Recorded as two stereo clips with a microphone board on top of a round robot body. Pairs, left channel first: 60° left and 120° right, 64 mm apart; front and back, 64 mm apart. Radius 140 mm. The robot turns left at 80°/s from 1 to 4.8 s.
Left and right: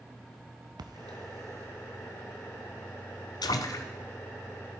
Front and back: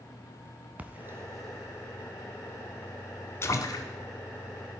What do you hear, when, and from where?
0.8 s a splash: 115° right, 0.8 m; by 3.9 s 15° left, 0.8 m